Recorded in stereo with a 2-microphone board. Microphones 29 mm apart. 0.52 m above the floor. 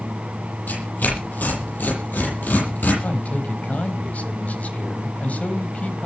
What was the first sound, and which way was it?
Tearing paper, 75° left (ahead or behind).